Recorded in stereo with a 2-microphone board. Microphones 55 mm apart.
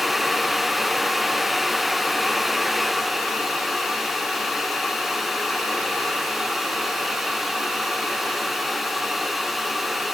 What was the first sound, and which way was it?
Only background noise.